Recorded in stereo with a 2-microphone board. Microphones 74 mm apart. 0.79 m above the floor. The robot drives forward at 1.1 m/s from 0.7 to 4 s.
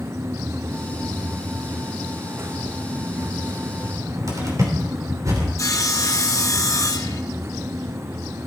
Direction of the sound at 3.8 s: 50° right (ahead or behind).